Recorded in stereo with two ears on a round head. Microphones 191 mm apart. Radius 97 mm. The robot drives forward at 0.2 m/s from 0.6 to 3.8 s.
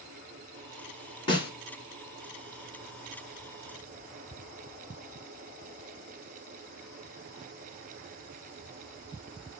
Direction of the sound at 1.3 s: 25° left (ahead or behind).